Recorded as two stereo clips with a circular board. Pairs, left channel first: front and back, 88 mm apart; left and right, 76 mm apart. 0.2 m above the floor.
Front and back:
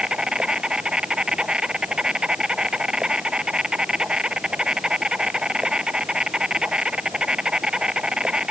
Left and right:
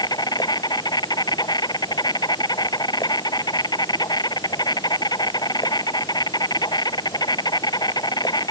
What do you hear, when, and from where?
0.0 s an insect: 100° left